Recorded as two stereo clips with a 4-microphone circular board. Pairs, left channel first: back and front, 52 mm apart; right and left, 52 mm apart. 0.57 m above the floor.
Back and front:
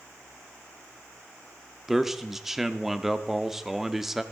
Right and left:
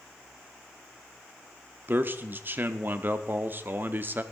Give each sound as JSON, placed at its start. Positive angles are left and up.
{"t": 1.9, "sound": "a man speaking", "azimuth_deg": 80, "distance_m": 0.8}